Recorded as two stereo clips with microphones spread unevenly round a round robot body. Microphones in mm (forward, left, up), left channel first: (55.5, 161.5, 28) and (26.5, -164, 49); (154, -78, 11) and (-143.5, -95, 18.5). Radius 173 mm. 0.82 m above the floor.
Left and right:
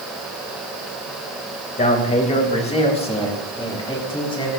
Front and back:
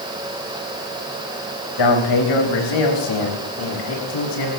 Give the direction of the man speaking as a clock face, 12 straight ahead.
11 o'clock.